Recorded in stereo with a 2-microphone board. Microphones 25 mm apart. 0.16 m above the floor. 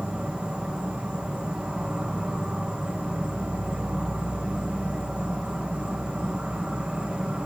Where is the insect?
60° right (ahead or behind), 3.5 m.